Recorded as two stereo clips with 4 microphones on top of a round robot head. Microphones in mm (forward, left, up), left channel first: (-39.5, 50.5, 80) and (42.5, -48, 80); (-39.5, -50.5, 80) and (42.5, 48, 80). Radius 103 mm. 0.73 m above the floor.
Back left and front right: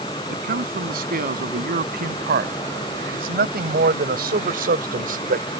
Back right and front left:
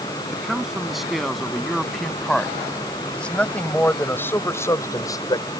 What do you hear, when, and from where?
0.3 s a man speaking: 35° right; by 5.5 s 70° right